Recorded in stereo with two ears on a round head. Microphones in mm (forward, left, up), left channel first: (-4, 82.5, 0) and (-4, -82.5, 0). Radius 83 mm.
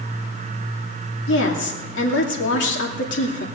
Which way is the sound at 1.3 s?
70° left (ahead or behind).